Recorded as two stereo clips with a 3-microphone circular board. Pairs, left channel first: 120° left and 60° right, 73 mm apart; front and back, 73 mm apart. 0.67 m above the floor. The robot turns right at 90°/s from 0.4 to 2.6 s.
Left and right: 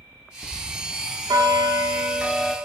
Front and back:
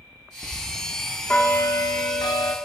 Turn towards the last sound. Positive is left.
turn(degrees=45)